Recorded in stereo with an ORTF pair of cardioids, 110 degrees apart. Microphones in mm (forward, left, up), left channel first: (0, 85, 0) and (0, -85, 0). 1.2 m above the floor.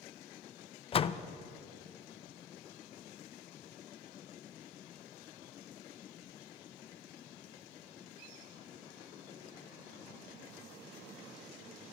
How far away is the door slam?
About 0.6 m.